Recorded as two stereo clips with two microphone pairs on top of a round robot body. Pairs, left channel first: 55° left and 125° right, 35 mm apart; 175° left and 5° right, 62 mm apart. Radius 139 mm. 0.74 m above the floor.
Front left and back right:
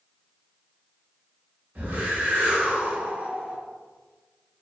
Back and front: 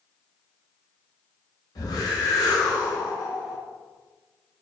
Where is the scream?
No scream in this recording.